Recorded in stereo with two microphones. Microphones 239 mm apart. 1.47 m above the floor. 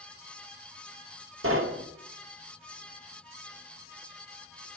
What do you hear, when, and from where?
1.4 s knocking: 70° right (ahead or behind), 0.8 m